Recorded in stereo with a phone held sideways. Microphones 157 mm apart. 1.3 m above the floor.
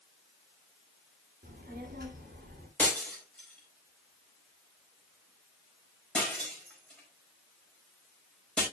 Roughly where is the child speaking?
Right.